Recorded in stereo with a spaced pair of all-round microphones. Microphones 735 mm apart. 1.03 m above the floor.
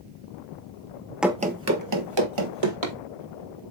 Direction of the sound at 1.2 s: Centre (ahead or behind).